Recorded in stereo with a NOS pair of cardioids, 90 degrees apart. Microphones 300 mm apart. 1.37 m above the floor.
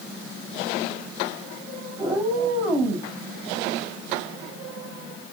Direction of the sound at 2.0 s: 10° right.